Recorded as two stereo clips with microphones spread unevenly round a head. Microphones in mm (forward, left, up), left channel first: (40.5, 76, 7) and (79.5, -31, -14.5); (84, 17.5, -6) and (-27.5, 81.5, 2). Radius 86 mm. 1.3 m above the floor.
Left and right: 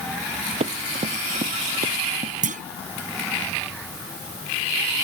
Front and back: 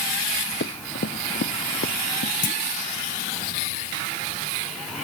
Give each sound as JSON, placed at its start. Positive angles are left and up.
{"t": 0.6, "sound": "running footsteps", "azimuth_deg": -40}
{"t": 2.4, "sound": "a clunk", "azimuth_deg": -70}